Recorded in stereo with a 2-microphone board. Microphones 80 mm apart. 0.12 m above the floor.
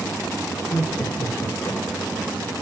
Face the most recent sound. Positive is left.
turn(degrees=55)  # may be behind; listen again after turning